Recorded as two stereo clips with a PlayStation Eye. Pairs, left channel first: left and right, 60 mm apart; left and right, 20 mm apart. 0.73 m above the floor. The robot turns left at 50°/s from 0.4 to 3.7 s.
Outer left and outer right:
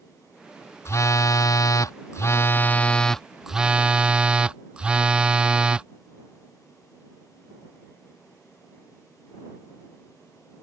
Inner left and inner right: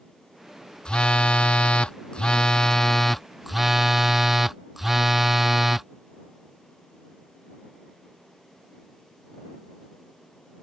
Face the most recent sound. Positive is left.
turn(degrees=-20)